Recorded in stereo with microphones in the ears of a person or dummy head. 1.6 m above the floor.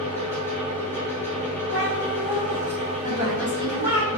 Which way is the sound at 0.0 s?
10° left (ahead or behind).